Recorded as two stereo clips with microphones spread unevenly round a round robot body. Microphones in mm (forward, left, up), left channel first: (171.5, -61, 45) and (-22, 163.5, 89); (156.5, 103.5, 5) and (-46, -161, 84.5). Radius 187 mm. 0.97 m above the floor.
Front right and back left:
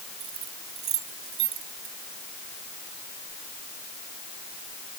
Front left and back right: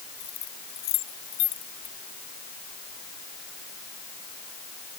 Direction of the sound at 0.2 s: 105° left.